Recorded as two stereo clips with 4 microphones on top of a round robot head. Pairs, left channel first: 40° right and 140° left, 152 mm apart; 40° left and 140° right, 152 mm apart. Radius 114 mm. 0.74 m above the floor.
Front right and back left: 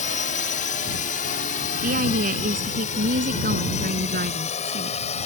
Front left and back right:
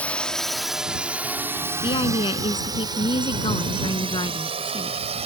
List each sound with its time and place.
0.0 s a drone: 40° right; by 5.3 s 90° right
1.8 s a woman speaking: 100° left